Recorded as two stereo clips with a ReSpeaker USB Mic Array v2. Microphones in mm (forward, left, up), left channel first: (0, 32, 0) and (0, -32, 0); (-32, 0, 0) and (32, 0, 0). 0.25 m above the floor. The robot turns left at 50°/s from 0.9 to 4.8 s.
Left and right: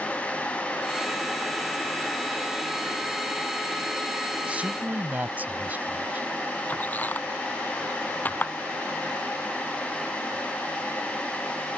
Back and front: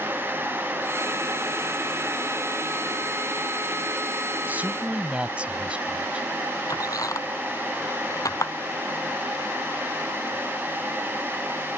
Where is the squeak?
150° left.